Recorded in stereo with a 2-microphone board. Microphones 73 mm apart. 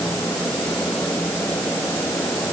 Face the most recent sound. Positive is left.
No sound to turn to.